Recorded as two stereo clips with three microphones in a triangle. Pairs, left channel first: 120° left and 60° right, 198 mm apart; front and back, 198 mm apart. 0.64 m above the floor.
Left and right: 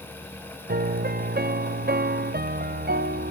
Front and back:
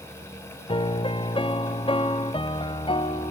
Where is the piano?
60° right, 0.6 m.